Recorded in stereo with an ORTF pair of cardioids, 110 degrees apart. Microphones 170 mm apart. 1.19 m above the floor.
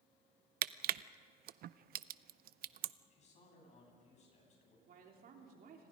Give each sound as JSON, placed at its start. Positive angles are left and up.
{"t": 0.6, "sound": "crushing", "azimuth_deg": -60, "distance_m": 0.6}
{"t": 3.1, "sound": "a man speaking", "azimuth_deg": 40, "distance_m": 9.0}
{"t": 4.9, "sound": "a woman speaking", "azimuth_deg": -60, "distance_m": 3.5}